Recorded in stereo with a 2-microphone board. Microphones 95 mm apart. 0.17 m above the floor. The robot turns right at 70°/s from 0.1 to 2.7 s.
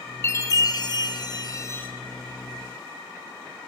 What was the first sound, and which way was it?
A chime, 35° left.